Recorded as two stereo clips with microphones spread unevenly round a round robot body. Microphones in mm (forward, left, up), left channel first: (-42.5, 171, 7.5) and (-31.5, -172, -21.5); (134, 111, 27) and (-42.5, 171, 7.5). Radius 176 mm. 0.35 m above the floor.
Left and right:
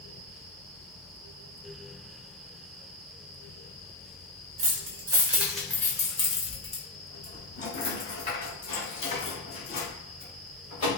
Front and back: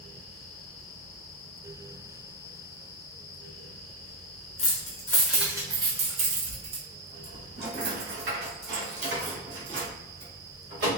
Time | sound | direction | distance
4.6 | keys jangling | 50° right | 0.6 m